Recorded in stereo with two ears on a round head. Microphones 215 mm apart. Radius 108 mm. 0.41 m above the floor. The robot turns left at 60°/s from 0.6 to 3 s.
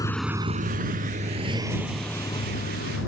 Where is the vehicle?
15° left (ahead or behind); by 3.1 s 55° left (ahead or behind).